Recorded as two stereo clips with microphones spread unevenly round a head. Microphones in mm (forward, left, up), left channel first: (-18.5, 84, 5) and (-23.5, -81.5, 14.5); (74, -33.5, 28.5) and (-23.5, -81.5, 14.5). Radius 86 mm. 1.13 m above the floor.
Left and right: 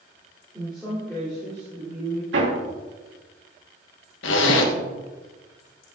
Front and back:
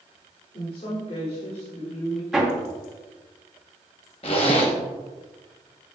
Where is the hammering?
70° right, 2.5 m.